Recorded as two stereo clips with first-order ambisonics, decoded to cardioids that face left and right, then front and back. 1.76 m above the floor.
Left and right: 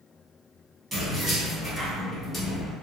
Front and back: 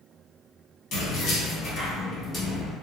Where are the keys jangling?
15° right, 1.2 m; by 2.7 s 75° left, 0.8 m.